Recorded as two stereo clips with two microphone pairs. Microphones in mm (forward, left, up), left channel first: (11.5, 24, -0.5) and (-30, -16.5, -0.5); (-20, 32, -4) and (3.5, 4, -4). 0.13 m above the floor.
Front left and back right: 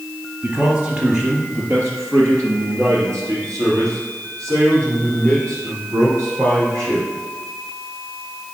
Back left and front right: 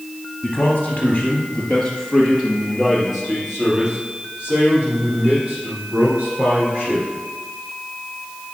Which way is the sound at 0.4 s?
165° left.